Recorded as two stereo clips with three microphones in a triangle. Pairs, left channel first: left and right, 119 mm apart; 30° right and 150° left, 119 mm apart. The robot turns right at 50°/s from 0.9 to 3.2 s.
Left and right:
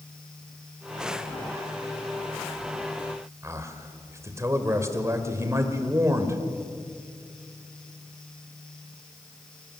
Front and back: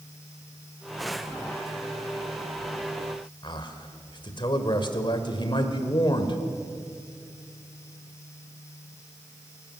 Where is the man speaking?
40° right, 1.8 m.